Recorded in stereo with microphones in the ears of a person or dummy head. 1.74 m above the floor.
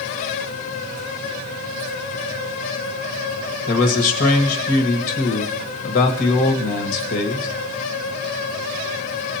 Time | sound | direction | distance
3.7 | a man speaking | 45° left (ahead or behind) | 1.5 m